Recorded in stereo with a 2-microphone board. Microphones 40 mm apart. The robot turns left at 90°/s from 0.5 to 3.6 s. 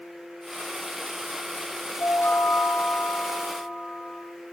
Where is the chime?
90° left, 3.5 m; by 4.2 s 55° right, 3.5 m.